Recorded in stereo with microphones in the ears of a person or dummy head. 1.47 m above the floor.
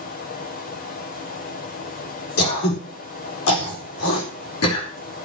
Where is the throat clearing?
90° left, 4 m.